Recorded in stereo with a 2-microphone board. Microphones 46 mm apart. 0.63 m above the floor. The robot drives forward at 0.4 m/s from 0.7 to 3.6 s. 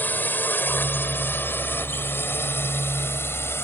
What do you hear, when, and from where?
0.0 s a drone: 40° left (ahead or behind); by 3.6 s 60° left (ahead or behind)